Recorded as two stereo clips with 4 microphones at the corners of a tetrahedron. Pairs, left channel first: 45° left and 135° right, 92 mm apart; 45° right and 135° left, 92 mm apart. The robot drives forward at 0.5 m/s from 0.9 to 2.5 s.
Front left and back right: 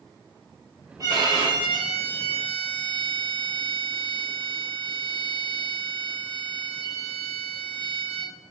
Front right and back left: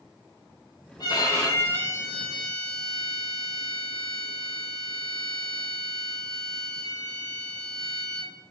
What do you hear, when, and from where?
1.0 s a violin: 85° right, 0.7 m; by 8.3 s 135° right, 1.0 m